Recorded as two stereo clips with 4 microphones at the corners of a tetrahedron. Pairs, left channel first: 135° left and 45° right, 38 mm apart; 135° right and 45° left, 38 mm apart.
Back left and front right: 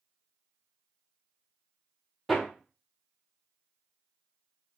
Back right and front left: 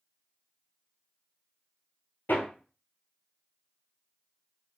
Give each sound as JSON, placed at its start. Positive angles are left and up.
{"t": 2.3, "sound": "hammering", "azimuth_deg": -135, "distance_m": 1.0}